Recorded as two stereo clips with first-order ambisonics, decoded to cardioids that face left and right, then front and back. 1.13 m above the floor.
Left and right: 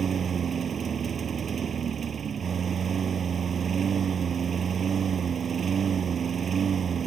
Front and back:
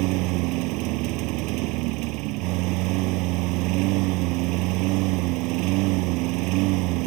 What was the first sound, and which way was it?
A lawn mower, 155° right.